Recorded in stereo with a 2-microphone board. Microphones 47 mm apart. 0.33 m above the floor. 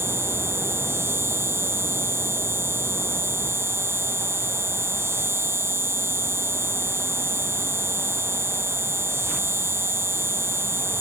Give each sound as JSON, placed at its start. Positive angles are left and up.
{"t": 0.0, "sound": "an insect", "side_deg": -75}